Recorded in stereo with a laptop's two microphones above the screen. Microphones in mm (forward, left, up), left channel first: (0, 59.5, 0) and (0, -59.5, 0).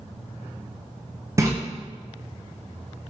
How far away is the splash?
About 0.5 m.